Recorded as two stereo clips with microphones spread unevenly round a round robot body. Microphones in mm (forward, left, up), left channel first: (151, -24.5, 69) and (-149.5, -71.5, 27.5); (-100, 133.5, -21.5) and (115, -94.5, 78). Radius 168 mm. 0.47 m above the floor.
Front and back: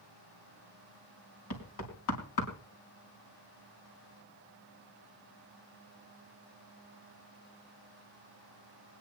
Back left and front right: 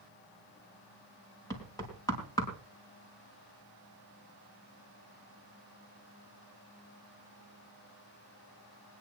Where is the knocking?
55° left, 4 m.